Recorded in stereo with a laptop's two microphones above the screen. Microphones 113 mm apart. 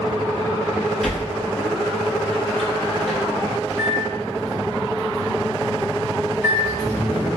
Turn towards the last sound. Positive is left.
turn(degrees=-30)  # may be behind; listen again after turning